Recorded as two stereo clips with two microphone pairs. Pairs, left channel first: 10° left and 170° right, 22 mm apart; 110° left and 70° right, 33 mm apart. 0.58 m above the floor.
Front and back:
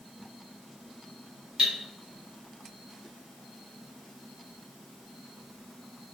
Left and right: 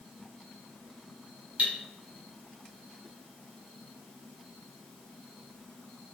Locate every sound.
1.6 s cutlery clinking: 115° right, 1.1 m